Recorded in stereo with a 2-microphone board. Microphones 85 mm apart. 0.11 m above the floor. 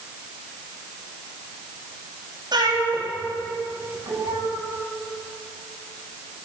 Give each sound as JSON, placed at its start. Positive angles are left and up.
{"t": 2.5, "sound": "a cat meowing", "side_deg": -55, "distance_m": 10.0}